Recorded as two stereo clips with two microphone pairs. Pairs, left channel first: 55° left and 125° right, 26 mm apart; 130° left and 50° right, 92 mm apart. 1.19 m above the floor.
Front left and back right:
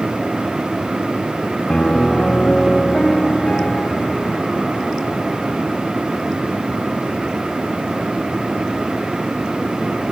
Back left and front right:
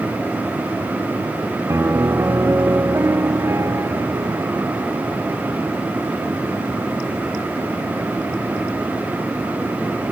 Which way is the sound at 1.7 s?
10° left.